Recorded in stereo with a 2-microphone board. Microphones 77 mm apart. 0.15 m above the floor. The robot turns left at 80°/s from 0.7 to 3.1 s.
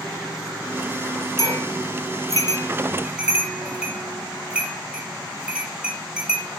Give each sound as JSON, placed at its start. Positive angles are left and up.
{"t": 1.4, "sound": "a bell", "side_deg": 50, "distance_m": 4.5}